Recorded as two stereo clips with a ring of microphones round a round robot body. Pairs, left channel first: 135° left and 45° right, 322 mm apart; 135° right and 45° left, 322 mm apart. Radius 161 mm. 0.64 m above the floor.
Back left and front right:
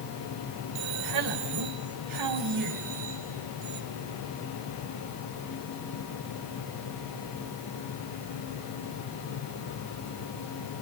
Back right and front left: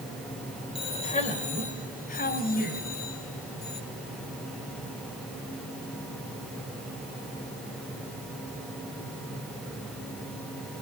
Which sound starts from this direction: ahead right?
A man speaking, at 0.8 s.